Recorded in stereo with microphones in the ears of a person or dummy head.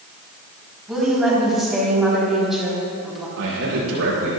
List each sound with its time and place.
0.9 s a woman speaking: centre (ahead or behind), 4.5 m
3.4 s a man speaking: 80° right, 4.5 m